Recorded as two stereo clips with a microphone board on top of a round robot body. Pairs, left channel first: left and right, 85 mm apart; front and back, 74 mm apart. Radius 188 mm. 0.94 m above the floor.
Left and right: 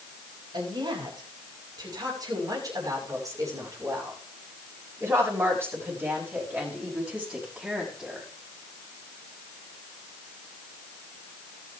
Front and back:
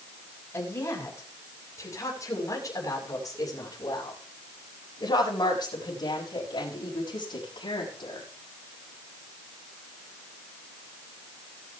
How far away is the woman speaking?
About 7 m.